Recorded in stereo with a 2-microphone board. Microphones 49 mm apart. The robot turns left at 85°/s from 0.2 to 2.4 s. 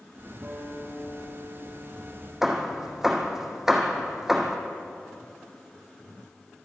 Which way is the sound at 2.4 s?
5° right (ahead or behind).